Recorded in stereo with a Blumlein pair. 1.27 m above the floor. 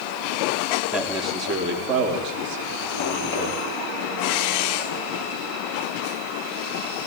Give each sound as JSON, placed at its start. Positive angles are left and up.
{"t": 0.9, "sound": "a man speaking", "azimuth_deg": -25, "distance_m": 3.5}